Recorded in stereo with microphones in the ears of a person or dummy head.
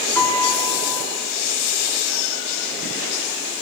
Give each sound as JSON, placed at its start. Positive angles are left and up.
{"t": 0.1, "sound": "a piano", "side_deg": 15, "distance_m": 5.5}